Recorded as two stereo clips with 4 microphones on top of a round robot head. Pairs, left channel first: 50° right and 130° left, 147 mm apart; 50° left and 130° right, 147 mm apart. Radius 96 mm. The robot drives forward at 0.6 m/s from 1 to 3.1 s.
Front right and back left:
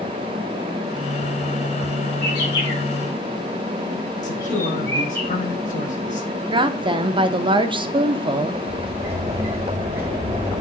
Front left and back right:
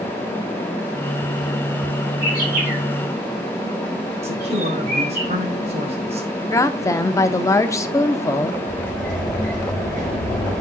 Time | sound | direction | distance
2.2 | a bird | 105° right | 4.5 m
4.2 | a man speaking | 85° right | 2 m
6.5 | a woman speaking | 105° left | 0.8 m
8.7 | a sliding door | 155° right | 2.5 m